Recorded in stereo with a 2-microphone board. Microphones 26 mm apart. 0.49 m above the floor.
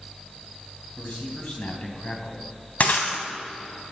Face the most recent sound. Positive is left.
turn(degrees=75)  # may be behind; listen again after turning